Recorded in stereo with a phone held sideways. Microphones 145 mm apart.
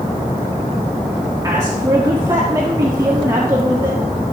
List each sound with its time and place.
1.4 s a woman speaking: 25° right (ahead or behind), 1.6 m